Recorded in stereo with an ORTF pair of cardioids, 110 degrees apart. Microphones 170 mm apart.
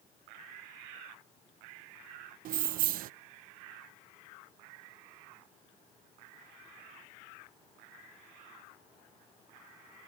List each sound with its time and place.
2.5 s keys jangling: 55° right